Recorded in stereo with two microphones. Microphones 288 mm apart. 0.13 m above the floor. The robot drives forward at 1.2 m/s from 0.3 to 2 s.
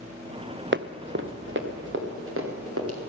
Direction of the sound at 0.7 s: 40° right (ahead or behind).